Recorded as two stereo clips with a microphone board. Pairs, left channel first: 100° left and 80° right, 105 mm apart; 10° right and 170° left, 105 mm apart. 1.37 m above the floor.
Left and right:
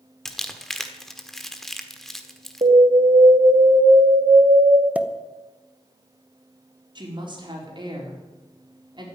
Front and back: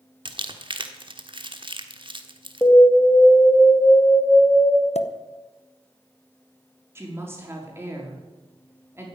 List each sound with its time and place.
0.2 s crumpling: 170° right, 1.3 m
2.6 s an alarm: 80° right, 2.5 m
5.0 s a pop: straight ahead, 0.9 m
7.0 s a woman speaking: 125° right, 4.5 m